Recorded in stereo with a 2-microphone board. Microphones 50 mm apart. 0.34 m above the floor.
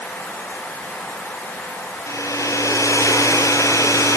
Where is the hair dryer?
75° left (ahead or behind), 4 m.